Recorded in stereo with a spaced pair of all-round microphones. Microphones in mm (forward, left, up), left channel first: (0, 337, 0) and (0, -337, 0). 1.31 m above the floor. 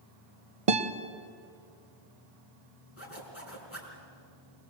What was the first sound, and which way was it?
A guitar, 50° right (ahead or behind).